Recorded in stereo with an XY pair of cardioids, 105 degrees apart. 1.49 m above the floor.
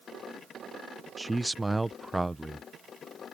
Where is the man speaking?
10° right.